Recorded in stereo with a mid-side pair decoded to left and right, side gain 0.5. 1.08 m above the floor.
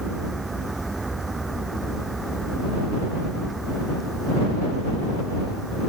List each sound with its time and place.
0.0 s a vehicle: 20° right; by 5.9 s 10° right